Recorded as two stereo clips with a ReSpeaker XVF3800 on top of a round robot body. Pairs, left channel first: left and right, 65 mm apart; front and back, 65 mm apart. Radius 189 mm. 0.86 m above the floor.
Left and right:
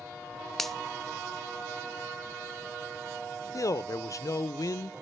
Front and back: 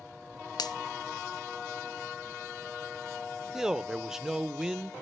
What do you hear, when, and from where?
0.6 s a finger snap: 5° left, 0.6 m
3.5 s a man speaking: 100° left, 0.6 m